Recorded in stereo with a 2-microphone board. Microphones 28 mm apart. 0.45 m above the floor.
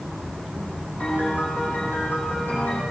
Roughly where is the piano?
Left.